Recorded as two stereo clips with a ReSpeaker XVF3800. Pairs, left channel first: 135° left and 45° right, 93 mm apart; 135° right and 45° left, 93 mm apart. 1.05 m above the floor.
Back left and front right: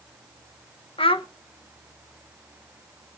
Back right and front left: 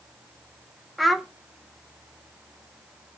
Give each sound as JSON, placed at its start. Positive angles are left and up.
{"t": 1.0, "sound": "a child speaking", "azimuth_deg": 135, "distance_m": 0.6}